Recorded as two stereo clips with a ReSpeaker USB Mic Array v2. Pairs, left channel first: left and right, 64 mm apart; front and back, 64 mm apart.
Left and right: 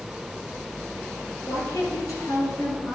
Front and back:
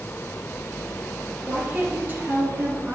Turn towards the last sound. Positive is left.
turn(degrees=125)